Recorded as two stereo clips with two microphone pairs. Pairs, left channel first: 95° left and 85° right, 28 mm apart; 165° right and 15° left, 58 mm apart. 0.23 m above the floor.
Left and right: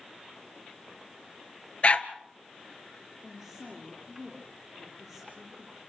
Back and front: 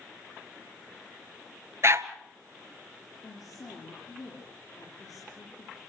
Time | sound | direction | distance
1.8 | a dog barking | 55° left | 1.3 m
3.2 | a woman speaking | 170° right | 7 m